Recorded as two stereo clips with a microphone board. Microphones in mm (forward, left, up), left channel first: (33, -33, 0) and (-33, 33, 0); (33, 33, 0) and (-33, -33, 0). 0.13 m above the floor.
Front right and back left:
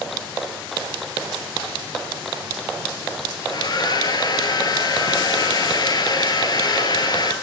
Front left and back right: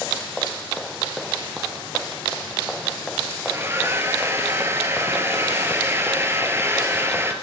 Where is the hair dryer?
75° right, 1.5 m.